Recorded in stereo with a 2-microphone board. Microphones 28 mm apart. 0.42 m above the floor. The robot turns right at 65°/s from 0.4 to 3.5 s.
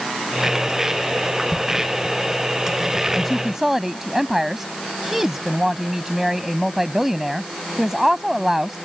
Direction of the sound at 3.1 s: 10° left (ahead or behind).